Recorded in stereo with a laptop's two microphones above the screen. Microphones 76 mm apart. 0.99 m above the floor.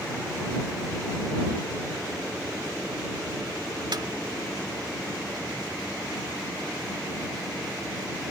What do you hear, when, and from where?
3.9 s a snare drum: 65° right (ahead or behind)